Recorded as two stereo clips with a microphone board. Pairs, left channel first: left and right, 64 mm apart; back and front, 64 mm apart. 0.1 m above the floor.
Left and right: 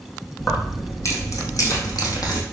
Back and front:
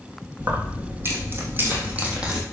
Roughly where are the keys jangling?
Ahead left.